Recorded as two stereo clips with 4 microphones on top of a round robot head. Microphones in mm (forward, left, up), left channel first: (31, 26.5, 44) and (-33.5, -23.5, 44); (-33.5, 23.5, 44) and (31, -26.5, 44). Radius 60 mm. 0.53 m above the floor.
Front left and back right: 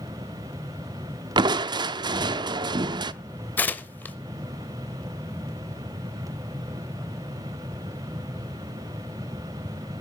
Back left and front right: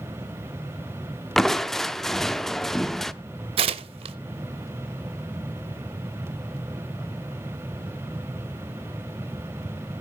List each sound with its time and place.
1.4 s crushing: 130° right, 0.6 m
3.6 s tearing paper: 35° right, 0.7 m